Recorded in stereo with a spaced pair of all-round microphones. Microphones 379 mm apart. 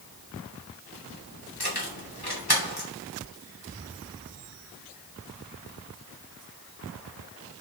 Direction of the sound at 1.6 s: 80° left.